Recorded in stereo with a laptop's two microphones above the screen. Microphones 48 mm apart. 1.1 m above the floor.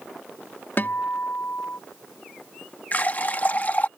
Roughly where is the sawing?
I don't hear sawing.